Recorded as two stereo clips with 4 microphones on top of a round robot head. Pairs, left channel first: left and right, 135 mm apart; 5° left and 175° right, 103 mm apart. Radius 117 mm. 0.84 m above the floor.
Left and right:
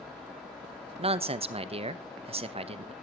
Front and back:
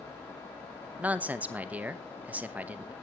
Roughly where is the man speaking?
Right.